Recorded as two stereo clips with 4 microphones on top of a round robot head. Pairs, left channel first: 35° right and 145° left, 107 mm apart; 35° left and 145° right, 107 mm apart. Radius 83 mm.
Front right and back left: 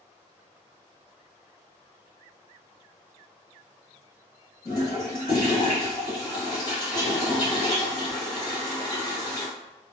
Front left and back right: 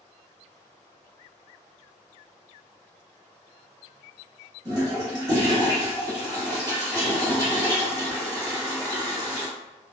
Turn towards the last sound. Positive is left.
turn(degrees=-90)